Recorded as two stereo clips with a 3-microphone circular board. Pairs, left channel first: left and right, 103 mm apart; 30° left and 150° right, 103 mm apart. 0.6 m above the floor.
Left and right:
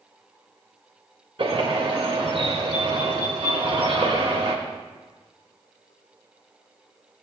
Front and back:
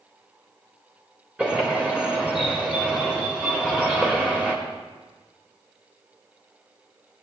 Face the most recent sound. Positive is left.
turn(degrees=-70)